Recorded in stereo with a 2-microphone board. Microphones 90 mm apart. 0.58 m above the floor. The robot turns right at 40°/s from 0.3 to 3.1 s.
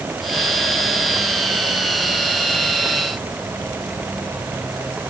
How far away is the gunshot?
I don't hear a gunshot.